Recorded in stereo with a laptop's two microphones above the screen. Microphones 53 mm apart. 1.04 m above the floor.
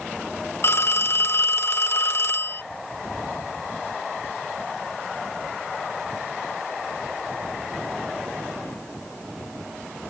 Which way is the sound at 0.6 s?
50° left (ahead or behind).